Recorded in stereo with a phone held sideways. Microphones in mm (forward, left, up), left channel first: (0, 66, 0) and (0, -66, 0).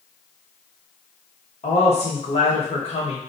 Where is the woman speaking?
50° left (ahead or behind), 1.3 m.